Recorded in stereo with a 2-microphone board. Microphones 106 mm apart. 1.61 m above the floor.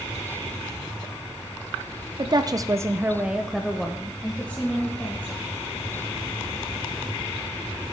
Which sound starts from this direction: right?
A woman speaking, at 2.2 s.